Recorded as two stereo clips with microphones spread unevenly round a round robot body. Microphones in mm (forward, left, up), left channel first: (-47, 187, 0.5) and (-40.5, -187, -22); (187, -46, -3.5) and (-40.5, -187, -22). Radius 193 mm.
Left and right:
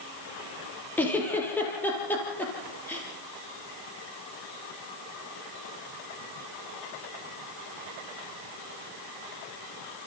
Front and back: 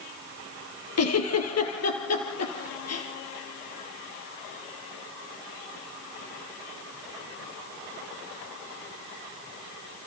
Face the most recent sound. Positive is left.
turn(degrees=5)